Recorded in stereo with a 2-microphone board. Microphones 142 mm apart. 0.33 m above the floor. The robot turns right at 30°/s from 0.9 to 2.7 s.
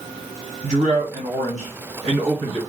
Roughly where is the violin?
No violin in this recording.